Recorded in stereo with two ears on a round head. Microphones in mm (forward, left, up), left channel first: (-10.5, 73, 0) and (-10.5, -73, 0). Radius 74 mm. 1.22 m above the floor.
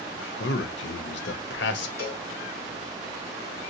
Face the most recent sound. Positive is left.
turn(degrees=60)  # may be behind; listen again after turning